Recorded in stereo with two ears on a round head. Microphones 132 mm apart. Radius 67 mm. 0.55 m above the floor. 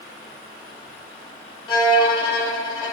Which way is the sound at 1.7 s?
25° left (ahead or behind).